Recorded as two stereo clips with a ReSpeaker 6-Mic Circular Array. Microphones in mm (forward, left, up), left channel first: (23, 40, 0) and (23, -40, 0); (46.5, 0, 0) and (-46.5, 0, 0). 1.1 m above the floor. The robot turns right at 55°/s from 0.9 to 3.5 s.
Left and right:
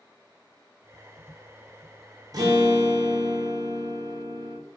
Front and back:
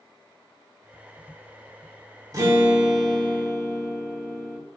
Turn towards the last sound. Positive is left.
turn(degrees=-65)